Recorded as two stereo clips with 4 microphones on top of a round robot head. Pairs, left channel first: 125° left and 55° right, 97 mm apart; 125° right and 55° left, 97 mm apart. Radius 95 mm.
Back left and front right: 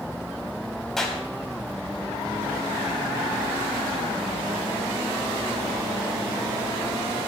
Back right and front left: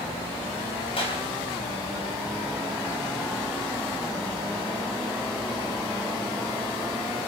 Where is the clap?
150° right, 4 m.